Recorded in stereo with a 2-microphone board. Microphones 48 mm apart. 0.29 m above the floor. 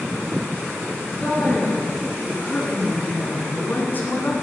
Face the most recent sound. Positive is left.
turn(degrees=45)  # may be behind; listen again after turning